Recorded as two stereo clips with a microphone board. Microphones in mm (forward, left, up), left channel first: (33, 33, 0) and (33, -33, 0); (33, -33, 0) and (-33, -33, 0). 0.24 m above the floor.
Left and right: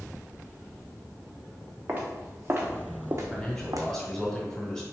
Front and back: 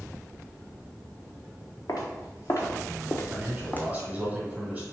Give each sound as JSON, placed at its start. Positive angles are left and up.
{"t": 1.9, "sound": "footsteps", "azimuth_deg": -25, "distance_m": 1.4}
{"t": 3.3, "sound": "a man speaking", "azimuth_deg": 155, "distance_m": 1.5}